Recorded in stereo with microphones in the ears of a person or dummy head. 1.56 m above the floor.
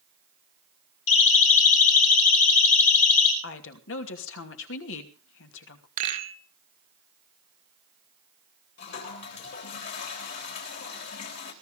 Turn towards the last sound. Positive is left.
turn(degrees=65)  # may be behind; listen again after turning